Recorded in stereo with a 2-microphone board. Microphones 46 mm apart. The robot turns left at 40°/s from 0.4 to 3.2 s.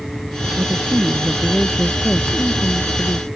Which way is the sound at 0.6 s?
130° right.